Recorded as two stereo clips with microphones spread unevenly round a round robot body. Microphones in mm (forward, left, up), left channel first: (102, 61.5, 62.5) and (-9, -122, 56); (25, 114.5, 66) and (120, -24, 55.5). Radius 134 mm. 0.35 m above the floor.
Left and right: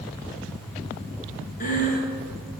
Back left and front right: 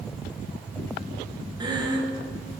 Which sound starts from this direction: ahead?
Breathing, at 1.6 s.